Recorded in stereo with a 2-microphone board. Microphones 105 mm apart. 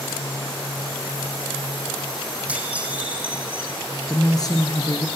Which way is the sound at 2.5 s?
15° right (ahead or behind).